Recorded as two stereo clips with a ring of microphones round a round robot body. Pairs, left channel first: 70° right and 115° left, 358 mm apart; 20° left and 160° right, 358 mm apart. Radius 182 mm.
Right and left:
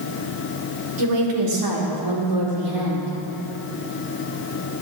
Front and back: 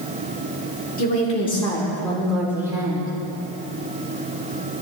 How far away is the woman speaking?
About 2.5 m.